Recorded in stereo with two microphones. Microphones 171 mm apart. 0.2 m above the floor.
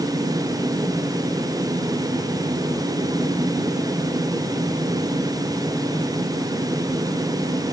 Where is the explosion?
No explosion in this recording.